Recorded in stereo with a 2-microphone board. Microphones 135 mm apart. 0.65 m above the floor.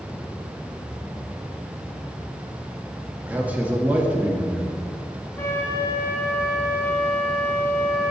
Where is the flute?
20° left (ahead or behind), 3.5 m.